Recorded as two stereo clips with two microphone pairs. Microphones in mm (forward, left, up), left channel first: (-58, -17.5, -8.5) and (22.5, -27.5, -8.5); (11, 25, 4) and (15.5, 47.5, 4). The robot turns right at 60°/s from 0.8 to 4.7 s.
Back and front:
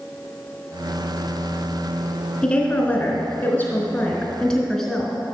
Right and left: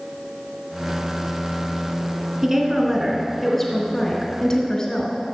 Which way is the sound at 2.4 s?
115° left.